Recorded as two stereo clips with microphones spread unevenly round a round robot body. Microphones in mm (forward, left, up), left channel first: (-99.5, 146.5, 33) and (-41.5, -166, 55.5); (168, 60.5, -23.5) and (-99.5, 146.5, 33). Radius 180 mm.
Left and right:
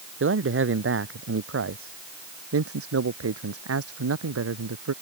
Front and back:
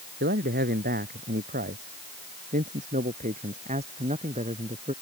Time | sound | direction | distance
0.2 | a man speaking | 130° right | ?